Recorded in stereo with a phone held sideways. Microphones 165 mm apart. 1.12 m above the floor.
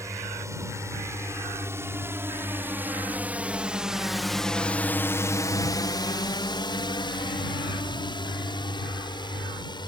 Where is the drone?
20° right (ahead or behind); by 9.9 s 25° left (ahead or behind).